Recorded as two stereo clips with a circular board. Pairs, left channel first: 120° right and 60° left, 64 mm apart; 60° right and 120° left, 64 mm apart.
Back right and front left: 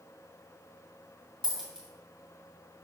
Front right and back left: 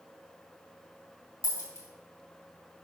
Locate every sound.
1.4 s a dropped coin: 20° right, 2.5 m